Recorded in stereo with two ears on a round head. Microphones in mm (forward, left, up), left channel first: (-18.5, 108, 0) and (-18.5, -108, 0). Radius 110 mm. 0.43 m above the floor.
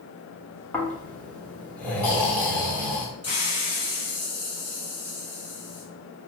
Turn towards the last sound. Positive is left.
turn(degrees=25)  # may be behind; listen again after turning